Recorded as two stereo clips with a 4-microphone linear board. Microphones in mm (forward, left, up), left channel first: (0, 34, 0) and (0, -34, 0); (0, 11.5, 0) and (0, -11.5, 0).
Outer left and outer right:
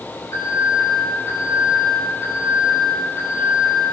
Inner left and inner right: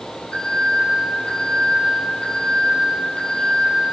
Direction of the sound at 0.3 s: 50° left (ahead or behind).